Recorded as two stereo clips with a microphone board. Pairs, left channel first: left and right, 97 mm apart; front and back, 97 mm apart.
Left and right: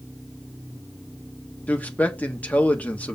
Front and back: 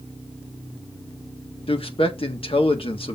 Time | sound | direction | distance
1.7 | a man speaking | 15° left | 1.5 m